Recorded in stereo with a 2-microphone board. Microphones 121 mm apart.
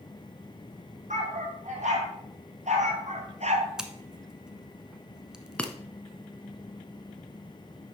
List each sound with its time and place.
1.1 s a dog barking: 80° right, 3.5 m; by 3.7 s 65° right (ahead or behind), 1.2 m
3.8 s scissors: 5° right (ahead or behind), 1.0 m
5.6 s breaking glass: 10° left (ahead or behind), 0.9 m